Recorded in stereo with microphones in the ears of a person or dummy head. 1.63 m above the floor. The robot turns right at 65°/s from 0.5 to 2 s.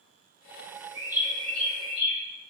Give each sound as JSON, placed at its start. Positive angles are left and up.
{"t": 0.9, "sound": "a bird", "azimuth_deg": -25, "distance_m": 1.2}